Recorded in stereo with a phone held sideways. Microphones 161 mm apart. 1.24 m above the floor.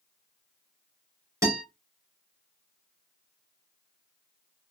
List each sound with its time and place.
1.4 s a guitar: 20° right (ahead or behind), 2.5 m